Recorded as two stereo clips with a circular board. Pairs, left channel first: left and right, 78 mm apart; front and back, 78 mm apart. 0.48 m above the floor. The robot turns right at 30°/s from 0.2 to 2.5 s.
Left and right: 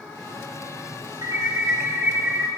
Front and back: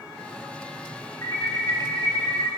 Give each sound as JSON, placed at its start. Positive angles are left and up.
{"t": 1.2, "sound": "an alarm", "azimuth_deg": -50, "distance_m": 4.5}